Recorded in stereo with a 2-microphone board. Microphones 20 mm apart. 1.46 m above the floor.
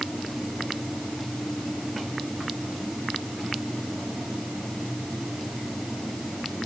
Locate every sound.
Only background noise.